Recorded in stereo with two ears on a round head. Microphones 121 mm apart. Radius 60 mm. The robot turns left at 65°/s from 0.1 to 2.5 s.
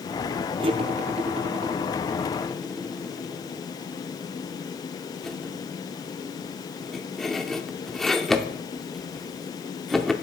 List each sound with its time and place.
0.6 s cutlery clinking: 40° right (ahead or behind), 0.7 m; by 10.1 s 5° left (ahead or behind), 0.7 m